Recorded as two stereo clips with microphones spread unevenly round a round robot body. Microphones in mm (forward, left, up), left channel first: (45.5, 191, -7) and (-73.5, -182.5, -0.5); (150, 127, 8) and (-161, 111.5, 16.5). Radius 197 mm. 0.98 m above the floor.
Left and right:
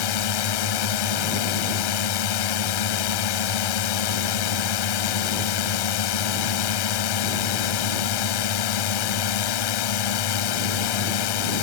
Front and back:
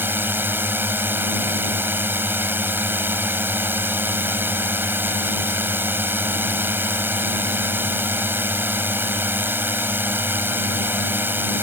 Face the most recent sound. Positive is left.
turn(degrees=100)